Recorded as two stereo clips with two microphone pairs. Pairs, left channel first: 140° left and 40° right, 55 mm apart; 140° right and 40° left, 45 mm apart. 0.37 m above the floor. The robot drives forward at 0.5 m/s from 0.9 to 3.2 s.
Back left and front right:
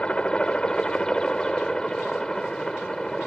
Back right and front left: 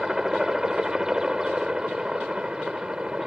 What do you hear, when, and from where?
0.0 s a helicopter: 100° left; by 3.3 s 75° left